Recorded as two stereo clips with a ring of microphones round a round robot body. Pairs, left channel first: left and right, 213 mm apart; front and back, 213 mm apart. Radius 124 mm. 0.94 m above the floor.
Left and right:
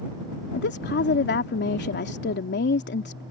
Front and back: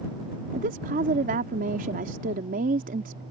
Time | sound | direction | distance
0.5 | a woman speaking | 125° left | ?